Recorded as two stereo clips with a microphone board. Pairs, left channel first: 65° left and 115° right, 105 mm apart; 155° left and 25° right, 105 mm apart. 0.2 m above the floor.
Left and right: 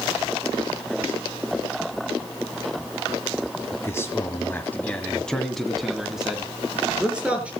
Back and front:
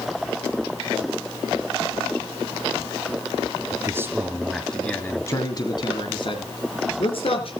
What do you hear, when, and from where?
3.7 s a man speaking: 20° left, 2.0 m; by 7.5 s 170° left, 4 m